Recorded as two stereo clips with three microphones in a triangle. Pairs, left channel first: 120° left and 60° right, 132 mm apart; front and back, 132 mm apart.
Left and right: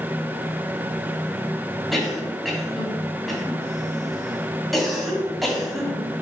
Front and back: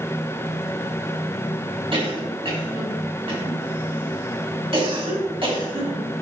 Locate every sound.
1.9 s a cough: 150° right, 2.5 m